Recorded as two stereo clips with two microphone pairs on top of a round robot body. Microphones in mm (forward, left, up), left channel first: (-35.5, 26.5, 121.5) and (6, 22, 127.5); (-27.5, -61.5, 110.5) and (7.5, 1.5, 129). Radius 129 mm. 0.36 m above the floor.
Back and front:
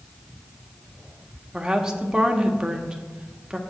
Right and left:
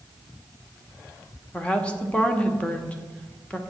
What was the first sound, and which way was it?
A woman speaking, 80° right.